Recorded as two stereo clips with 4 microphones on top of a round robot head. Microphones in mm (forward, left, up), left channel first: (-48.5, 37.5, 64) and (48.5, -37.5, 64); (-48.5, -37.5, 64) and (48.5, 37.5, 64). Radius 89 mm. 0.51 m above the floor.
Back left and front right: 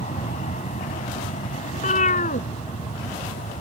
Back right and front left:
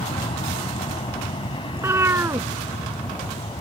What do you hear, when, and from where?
0.0 s an aircraft: 170° left
1.7 s a cat meowing: 110° left